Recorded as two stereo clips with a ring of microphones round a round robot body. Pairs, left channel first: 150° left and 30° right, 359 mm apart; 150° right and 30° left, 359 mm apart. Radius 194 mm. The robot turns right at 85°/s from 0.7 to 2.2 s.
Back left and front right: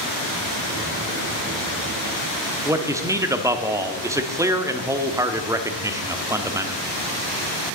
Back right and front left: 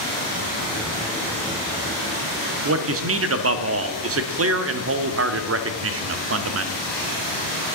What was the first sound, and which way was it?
A man speaking, 45° left.